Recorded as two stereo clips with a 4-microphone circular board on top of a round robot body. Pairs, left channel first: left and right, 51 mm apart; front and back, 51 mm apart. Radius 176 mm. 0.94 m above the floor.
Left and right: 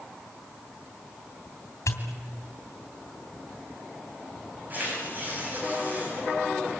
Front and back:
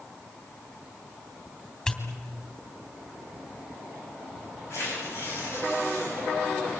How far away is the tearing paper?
About 9.5 m.